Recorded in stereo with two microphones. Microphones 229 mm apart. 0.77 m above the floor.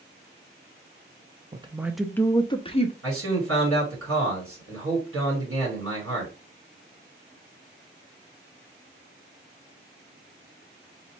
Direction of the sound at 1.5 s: 25° right (ahead or behind).